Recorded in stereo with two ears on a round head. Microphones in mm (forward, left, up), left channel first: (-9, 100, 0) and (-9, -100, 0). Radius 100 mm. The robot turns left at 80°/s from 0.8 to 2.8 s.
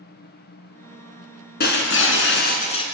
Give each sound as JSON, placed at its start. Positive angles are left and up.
{"t": 1.6, "sound": "breaking glass", "azimuth_deg": 125, "distance_m": 2.5}